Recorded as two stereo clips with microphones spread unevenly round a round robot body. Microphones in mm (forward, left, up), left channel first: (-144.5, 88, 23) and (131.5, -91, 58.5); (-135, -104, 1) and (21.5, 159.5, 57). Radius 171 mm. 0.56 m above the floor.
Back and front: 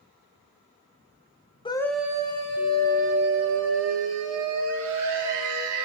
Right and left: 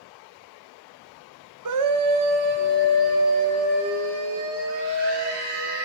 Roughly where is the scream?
Left.